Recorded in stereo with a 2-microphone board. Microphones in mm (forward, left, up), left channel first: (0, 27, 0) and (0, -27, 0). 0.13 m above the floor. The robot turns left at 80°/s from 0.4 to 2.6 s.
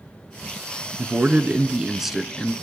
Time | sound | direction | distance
1.0 | a man speaking | 30° right (ahead or behind) | 1.2 m